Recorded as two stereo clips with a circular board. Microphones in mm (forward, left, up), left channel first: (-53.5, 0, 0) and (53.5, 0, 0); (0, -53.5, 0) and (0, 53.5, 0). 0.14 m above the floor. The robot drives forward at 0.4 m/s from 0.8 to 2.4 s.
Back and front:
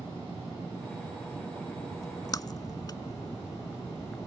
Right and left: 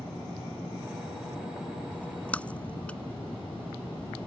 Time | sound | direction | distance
1.9 | a splash | 155° right | ?